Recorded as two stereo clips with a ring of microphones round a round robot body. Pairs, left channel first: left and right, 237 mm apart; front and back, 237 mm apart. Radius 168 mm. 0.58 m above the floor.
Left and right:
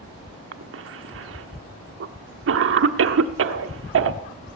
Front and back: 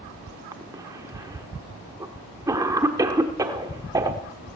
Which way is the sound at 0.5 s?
105° right.